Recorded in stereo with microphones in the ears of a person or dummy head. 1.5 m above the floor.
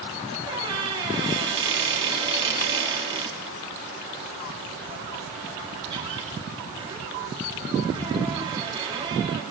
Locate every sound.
0.5 s a squeak: 25° right (ahead or behind), 2.0 m